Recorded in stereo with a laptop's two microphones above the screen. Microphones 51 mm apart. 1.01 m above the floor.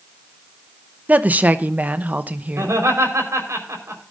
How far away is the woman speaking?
About 0.7 m.